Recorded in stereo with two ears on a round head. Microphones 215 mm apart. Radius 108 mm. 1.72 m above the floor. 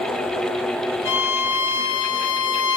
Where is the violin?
55° left (ahead or behind), 1.5 m.